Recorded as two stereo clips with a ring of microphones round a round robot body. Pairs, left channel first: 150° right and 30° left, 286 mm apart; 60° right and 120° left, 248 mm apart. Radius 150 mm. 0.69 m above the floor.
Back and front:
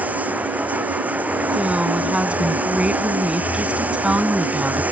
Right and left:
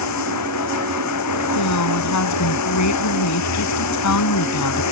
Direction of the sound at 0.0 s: 55° right.